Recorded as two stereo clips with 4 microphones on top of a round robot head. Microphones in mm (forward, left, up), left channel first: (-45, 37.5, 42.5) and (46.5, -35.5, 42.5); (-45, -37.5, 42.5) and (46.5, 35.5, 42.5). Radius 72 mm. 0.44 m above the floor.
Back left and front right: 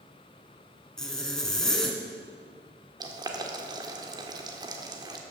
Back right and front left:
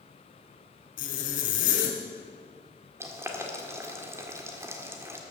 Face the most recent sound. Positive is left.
turn(degrees=-15)